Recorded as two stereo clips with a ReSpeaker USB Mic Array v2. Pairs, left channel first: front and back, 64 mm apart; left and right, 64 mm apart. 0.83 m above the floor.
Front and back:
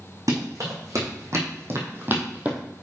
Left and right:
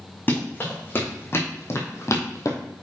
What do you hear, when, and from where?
0.3 s running footsteps: 150° left, 3.5 m; by 2.6 s 110° left, 1.7 m